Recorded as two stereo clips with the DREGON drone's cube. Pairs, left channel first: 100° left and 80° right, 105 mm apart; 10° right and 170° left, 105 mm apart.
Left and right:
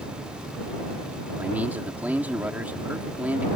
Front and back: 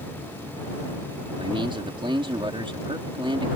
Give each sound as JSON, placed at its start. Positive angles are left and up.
{"t": 1.4, "sound": "a man speaking", "azimuth_deg": -155}